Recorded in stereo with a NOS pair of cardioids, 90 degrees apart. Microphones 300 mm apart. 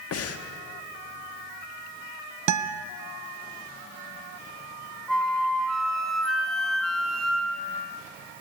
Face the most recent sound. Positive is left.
turn(degrees=0)